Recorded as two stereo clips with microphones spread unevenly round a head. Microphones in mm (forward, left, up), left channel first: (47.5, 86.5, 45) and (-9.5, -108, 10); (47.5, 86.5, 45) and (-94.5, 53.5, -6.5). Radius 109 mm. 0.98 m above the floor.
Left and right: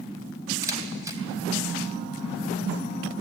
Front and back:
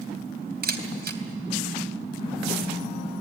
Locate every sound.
0.6 s a camera shutter: 175° left, 3 m